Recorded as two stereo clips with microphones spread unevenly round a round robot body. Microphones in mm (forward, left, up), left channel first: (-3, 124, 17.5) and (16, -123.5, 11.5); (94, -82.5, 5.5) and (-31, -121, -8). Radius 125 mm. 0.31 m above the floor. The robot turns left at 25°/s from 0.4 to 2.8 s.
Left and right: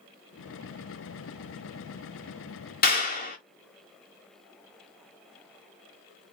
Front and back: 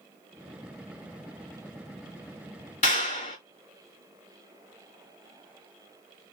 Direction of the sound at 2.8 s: 50° left.